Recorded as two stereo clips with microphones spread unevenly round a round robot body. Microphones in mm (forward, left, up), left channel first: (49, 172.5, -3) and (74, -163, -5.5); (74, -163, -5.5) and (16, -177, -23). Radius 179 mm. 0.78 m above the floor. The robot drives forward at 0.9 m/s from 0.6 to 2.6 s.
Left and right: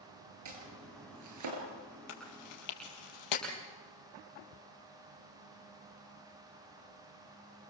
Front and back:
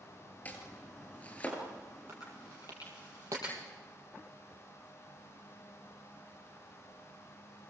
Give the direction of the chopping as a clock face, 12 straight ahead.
2 o'clock.